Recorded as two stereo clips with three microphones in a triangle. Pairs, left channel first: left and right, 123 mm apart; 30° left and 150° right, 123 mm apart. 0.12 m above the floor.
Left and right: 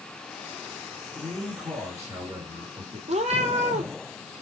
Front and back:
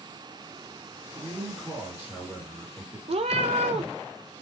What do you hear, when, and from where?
1.1 s a man speaking: 95° right, 1.8 m
3.1 s a cat meowing: 115° right, 0.6 m